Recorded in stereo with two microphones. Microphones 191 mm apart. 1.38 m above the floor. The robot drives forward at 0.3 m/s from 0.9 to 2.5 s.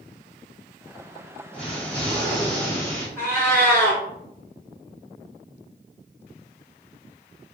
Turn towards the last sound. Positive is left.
turn(degrees=15)  # may be behind; listen again after turning